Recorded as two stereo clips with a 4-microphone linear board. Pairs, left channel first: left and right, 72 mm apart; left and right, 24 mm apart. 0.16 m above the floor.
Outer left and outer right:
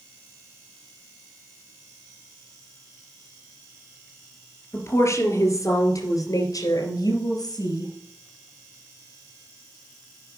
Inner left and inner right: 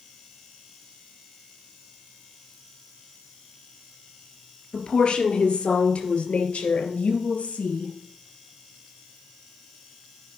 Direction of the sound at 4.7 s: 40° left (ahead or behind).